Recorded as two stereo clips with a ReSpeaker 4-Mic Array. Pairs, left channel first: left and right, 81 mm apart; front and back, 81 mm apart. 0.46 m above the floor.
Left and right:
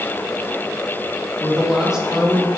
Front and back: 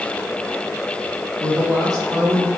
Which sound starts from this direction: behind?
A woman speaking, at 1.4 s.